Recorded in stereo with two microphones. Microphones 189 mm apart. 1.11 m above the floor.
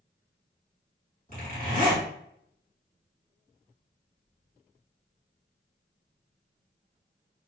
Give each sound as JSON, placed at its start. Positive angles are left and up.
{"t": 1.3, "sound": "a zipper", "side_deg": 40, "distance_m": 2.0}